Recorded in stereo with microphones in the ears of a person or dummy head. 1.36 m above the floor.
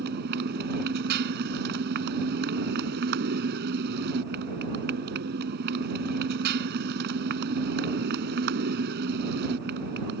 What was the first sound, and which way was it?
A motorcycle, 55° right (ahead or behind).